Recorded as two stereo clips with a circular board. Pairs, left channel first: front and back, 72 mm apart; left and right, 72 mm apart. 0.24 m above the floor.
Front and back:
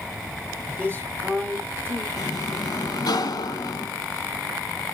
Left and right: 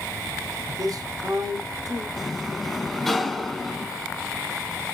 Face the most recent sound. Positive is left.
turn(degrees=5)